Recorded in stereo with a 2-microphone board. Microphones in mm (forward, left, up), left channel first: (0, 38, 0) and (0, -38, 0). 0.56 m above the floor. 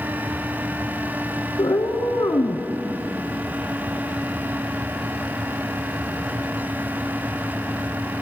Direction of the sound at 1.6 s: 65° left (ahead or behind).